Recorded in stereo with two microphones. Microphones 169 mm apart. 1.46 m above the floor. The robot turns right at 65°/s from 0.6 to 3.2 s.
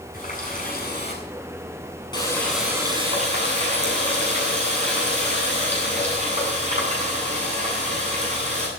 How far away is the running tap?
About 8.5 m.